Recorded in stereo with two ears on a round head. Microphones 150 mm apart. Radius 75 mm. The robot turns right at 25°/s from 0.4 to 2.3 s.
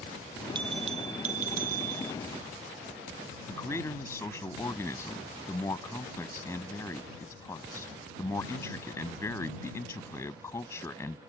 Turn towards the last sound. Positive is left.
turn(degrees=15)  # may be behind; listen again after turning